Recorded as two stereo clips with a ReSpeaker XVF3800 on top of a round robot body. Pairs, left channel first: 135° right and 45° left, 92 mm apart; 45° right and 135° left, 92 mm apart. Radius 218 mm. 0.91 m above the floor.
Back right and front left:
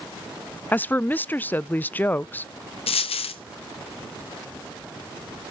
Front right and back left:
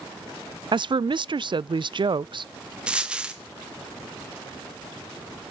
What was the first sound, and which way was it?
A woman speaking, 155° left.